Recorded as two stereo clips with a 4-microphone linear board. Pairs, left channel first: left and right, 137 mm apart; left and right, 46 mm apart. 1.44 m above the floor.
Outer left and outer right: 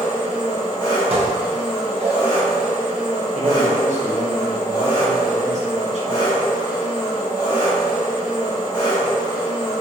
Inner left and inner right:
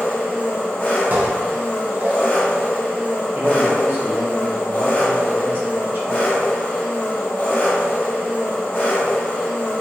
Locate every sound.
0.0 s an engine running: 40° left (ahead or behind), 1.7 m
1.1 s dishes clattering: 45° right (ahead or behind), 0.6 m
3.3 s a man speaking: 55° right (ahead or behind), 0.8 m